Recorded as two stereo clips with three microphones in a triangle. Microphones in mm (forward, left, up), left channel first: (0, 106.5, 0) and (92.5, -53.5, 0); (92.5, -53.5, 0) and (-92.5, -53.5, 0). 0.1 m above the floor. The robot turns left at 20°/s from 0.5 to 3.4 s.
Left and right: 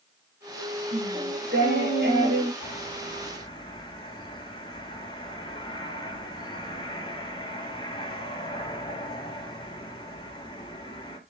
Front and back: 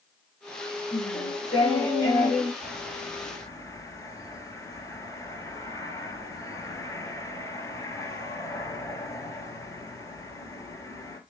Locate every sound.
0.9 s singing: 45° right, 6.5 m; by 2.5 s 80° right, 6.5 m
2.6 s a bird: 80° left, 2.5 m; by 11.2 s 65° left, 2.5 m